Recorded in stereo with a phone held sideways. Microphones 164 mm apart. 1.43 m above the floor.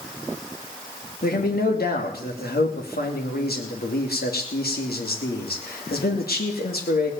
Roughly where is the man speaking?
Left.